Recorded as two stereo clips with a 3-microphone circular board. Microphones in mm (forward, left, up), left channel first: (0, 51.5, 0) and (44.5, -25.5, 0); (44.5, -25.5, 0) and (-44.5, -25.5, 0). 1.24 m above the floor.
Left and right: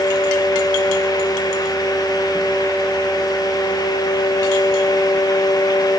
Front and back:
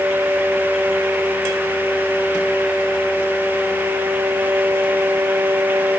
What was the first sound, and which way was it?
Only background noise.